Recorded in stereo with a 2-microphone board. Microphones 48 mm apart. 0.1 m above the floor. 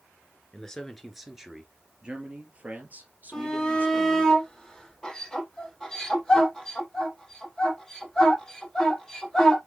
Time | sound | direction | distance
0.5 | a man speaking | 10° left (ahead or behind) | 1.9 m
3.3 | a shout | 10° left (ahead or behind) | 3.5 m